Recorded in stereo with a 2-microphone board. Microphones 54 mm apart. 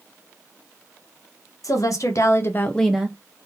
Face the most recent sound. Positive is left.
turn(degrees=-25)  # may be behind; listen again after turning